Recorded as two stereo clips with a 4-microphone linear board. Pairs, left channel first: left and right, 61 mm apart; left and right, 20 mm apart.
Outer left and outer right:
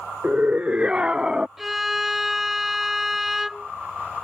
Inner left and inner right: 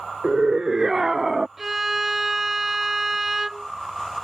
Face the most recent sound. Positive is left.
turn(degrees=-5)  # may be behind; listen again after turning